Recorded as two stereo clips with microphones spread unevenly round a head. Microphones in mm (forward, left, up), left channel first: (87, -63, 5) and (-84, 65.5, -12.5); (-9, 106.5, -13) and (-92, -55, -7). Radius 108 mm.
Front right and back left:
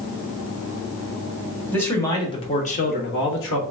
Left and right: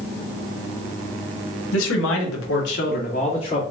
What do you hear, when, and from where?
1.7 s a man speaking: 45° left, 1.6 m; by 3.6 s 10° right, 1.3 m